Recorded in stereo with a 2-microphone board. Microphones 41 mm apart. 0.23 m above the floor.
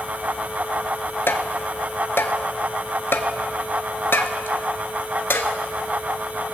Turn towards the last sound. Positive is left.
turn(degrees=75)  # may be behind; listen again after turning